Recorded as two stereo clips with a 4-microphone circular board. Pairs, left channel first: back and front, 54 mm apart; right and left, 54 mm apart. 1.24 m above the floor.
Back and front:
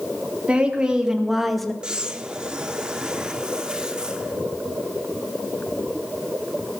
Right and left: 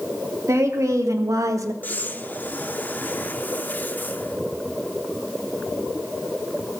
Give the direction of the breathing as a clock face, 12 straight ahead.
2 o'clock.